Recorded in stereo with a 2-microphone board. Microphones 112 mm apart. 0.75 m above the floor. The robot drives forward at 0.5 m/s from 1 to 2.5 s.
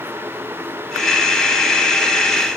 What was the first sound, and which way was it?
Only background noise.